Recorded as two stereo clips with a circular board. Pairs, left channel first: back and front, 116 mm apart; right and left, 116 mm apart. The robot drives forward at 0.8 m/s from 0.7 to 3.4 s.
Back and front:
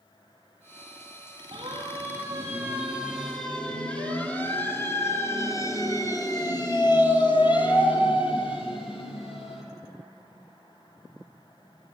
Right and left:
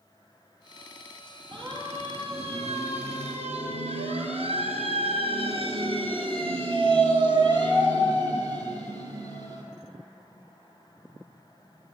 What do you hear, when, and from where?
1.5 s a siren: 50° left, 4.5 m; by 9.6 s 145° left, 6 m